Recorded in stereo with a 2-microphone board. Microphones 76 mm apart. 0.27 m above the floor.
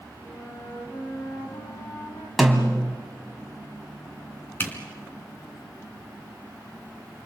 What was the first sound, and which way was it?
A flute, 45° left (ahead or behind).